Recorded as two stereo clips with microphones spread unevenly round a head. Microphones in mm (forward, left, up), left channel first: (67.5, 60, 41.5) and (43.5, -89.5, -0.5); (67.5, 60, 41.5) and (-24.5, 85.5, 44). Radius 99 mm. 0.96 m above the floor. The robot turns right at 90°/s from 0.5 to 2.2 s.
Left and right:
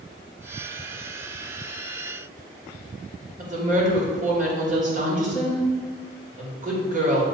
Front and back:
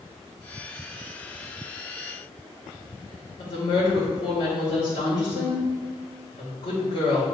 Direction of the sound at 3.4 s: 70° right.